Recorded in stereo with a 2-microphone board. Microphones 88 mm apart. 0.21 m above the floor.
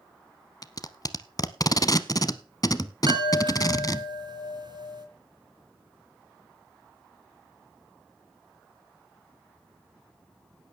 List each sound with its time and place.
0.6 s tape being pulled: 45° left (ahead or behind), 0.7 m
3.1 s a chime: 55° right (ahead or behind), 2.5 m